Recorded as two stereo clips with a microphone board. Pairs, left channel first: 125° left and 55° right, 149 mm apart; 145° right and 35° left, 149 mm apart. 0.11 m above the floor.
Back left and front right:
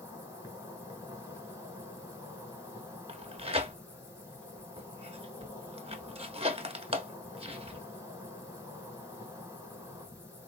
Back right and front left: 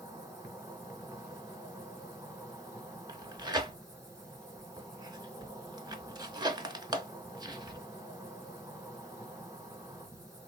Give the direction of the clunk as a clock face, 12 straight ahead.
No clunk in this recording.